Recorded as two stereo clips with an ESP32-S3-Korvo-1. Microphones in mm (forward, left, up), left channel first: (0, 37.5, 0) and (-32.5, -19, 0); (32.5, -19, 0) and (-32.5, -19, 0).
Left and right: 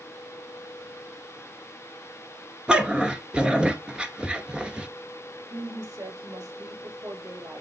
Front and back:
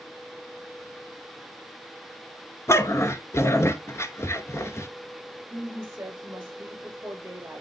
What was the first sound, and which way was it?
A dog barking, 45° right.